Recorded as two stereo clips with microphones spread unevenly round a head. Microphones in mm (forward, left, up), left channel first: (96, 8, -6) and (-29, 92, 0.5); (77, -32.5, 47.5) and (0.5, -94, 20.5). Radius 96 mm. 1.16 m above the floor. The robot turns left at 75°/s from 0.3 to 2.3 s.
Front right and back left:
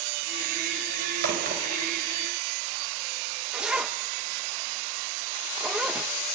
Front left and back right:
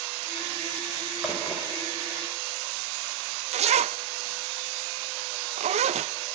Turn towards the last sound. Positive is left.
turn(degrees=-130)